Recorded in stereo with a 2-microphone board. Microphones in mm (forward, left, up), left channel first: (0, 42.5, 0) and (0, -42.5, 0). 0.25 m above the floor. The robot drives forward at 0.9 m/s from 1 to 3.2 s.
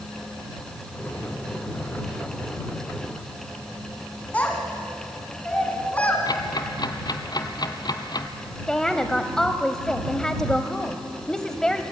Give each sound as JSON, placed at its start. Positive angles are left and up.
{"t": 4.3, "sound": "a child speaking", "side_deg": 15, "distance_m": 1.7}
{"t": 6.3, "sound": "ticking", "side_deg": 55, "distance_m": 1.0}
{"t": 8.7, "sound": "a woman speaking", "side_deg": 10, "distance_m": 0.9}